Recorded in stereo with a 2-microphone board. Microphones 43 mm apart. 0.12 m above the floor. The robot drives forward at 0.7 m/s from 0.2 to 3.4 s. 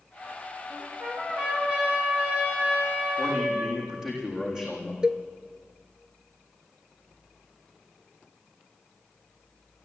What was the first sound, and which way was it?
A trumpet, 25° right (ahead or behind).